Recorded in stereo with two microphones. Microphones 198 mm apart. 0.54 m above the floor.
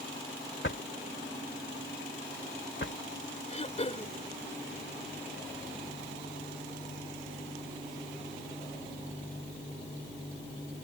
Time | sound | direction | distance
0.6 | a drawer | 70° left (ahead or behind) | ?
3.5 | throat clearing | 35° left (ahead or behind) | ?